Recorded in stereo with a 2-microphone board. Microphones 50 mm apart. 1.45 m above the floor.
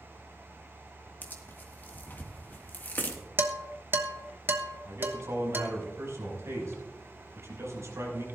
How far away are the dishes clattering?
About 1.1 m.